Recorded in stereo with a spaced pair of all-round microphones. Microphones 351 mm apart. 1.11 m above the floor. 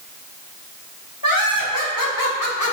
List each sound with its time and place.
1.2 s laughter: 75° left (ahead or behind), 3 m; by 2.7 s 50° left (ahead or behind), 1.1 m